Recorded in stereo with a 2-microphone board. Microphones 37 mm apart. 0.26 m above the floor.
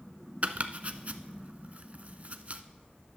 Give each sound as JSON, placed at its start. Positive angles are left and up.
{"t": 0.4, "sound": "chopping", "side_deg": -45, "distance_m": 0.5}